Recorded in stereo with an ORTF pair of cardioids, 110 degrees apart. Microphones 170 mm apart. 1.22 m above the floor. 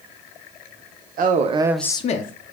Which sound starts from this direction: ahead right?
A man speaking, at 1.2 s.